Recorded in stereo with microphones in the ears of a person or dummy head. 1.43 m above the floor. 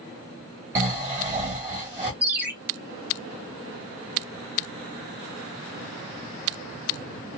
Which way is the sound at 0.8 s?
15° right (ahead or behind).